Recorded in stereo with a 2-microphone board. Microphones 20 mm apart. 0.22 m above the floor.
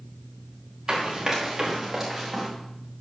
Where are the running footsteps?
30° right (ahead or behind), 4.5 m; by 2.5 s 5° right (ahead or behind), 4 m.